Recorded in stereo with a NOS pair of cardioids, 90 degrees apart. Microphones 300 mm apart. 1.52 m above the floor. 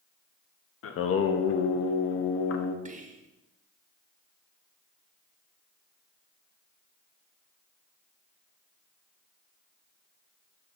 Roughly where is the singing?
Ahead left.